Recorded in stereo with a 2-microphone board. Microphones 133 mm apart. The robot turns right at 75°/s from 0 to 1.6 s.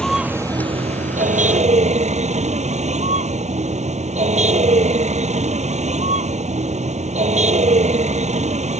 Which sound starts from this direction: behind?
A vehicle, at 0.0 s.